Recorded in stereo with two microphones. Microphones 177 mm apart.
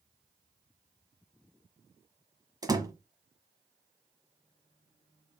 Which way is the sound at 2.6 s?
20° right (ahead or behind).